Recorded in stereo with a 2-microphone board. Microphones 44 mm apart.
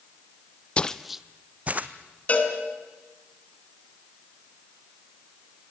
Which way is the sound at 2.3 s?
35° left (ahead or behind).